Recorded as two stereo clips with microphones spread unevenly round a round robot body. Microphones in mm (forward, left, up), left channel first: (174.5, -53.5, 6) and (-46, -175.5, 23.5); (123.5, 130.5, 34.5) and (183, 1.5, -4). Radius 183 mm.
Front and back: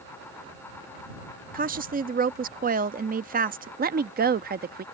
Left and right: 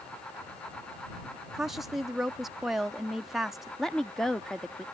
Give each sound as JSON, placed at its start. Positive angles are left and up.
{"t": 1.5, "sound": "a woman speaking", "azimuth_deg": -125}
{"t": 3.8, "sound": "a woman speaking", "azimuth_deg": -135}